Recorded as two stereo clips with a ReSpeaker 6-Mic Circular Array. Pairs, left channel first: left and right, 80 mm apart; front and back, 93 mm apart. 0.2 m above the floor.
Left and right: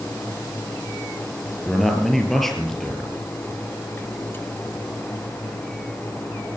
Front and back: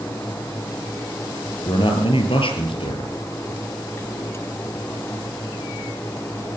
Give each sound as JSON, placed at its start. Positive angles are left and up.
{"t": 1.6, "sound": "a man speaking", "azimuth_deg": 5, "distance_m": 4.0}